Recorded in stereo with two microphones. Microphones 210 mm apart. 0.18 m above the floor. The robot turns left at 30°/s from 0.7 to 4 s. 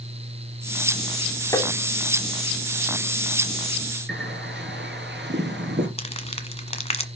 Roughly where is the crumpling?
Left.